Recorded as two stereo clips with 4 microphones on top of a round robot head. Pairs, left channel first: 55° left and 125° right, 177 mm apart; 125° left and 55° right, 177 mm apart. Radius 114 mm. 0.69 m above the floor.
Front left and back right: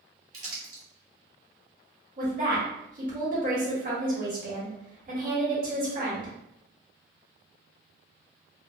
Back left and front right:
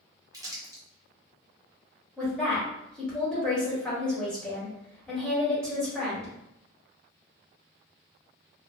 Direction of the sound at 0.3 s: 115° right.